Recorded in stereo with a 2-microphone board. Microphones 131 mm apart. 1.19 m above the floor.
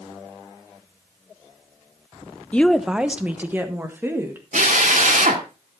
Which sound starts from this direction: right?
A drill, at 4.5 s.